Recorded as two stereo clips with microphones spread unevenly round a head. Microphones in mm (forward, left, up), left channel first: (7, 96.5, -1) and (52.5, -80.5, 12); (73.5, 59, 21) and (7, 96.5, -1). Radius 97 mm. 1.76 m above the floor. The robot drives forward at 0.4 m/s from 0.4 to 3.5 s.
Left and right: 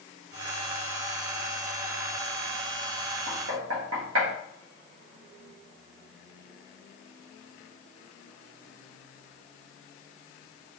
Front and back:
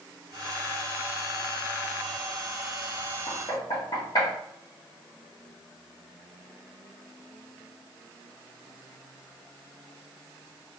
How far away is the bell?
No bell in this recording.